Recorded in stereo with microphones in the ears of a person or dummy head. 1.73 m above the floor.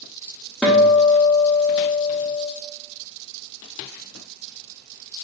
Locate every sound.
0.6 s a guitar: 5° right (ahead or behind), 0.9 m